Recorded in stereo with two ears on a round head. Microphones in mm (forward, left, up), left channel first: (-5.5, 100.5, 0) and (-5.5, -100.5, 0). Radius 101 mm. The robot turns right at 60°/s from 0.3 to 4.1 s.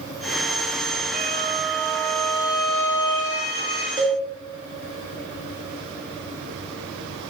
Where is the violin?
45° right, 3 m; by 3.9 s 120° left, 3 m.